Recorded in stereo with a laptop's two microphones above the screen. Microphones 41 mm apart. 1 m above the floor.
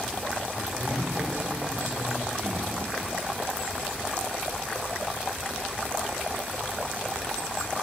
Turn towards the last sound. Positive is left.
turn(degrees=-75)  # may be behind; listen again after turning